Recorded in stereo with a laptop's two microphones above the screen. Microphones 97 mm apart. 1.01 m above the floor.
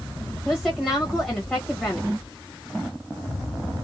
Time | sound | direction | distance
0.5 | a woman speaking | 10° left (ahead or behind) | 1.1 m